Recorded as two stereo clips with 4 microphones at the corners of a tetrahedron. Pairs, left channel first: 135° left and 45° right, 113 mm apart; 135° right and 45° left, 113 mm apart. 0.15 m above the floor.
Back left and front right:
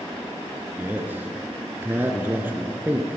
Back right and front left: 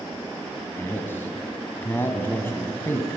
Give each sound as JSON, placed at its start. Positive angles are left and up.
{"t": 0.8, "sound": "a man speaking", "azimuth_deg": -95, "distance_m": 1.5}